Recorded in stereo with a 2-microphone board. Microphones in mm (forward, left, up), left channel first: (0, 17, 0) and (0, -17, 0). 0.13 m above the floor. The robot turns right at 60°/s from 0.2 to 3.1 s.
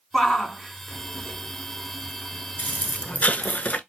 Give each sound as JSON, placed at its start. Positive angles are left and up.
{"t": 0.1, "sound": "a shout", "side_deg": 15, "distance_m": 1.2}
{"t": 2.6, "sound": "an explosion", "azimuth_deg": 70, "distance_m": 0.5}